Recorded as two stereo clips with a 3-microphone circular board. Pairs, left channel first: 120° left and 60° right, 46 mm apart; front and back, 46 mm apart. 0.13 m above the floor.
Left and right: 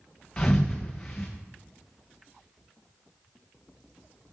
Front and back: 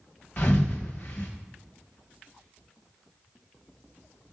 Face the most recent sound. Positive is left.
turn(degrees=50)